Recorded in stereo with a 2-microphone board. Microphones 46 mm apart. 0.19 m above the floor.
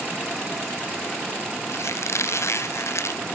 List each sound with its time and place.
1.7 s a squeak: 70° left (ahead or behind)